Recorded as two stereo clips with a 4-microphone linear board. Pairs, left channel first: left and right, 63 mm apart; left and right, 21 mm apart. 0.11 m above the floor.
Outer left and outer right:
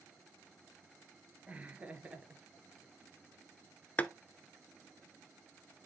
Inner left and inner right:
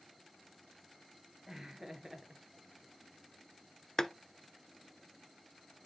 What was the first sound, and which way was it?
Laughter, 20° right (ahead or behind).